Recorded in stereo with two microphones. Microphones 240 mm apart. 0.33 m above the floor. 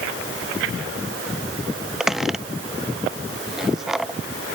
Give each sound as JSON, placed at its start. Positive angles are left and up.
{"t": 2.0, "sound": "a squeak", "side_deg": 0}